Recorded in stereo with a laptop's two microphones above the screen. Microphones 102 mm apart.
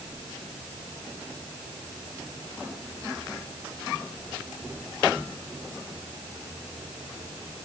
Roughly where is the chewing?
I don't hear chewing.